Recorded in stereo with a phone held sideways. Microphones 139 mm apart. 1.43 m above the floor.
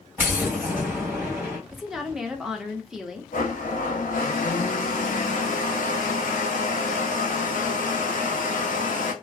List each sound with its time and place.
0.2 s an explosion: 15° right (ahead or behind), 2 m
1.7 s a woman speaking: 5° right (ahead or behind), 0.8 m
3.3 s a blender: 80° left, 0.7 m